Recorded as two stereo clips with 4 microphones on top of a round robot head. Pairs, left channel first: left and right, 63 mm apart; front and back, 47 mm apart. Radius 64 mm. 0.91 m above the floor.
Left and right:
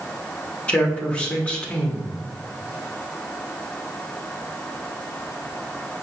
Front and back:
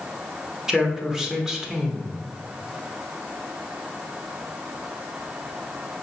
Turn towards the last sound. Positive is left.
turn(degrees=130)